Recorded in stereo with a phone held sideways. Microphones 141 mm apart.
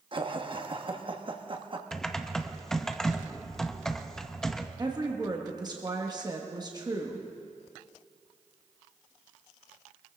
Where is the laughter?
35° right (ahead or behind), 1.2 m.